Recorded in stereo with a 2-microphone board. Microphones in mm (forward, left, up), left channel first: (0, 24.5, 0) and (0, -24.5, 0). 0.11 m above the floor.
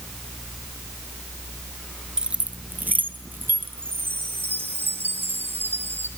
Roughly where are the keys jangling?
Centre.